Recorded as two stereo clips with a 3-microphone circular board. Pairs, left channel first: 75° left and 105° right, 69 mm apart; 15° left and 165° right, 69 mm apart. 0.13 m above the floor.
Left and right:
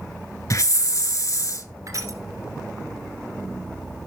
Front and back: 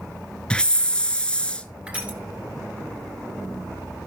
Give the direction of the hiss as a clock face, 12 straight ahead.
9 o'clock.